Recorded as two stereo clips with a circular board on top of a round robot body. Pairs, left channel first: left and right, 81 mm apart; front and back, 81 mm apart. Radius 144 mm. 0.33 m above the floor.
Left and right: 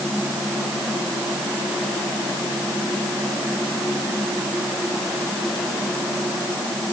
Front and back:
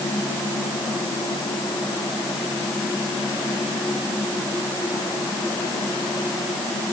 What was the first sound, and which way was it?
Only background noise.